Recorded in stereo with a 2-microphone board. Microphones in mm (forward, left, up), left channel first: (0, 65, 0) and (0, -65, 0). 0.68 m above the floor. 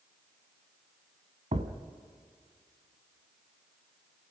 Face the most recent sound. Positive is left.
turn(degrees=-60)  # may be behind; listen again after turning